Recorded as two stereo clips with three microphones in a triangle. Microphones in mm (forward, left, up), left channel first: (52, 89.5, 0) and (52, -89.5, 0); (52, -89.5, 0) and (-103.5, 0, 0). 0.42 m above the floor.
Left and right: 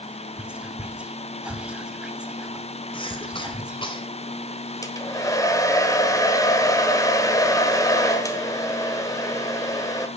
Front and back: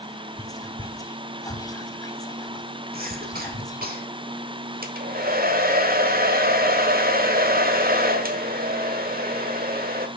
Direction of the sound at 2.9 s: 145° left.